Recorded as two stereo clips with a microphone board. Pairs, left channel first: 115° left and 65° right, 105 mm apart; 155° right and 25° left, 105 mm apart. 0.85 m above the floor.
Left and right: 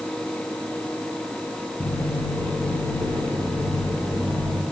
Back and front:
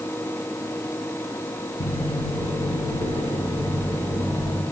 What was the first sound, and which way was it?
Footsteps, 175° right.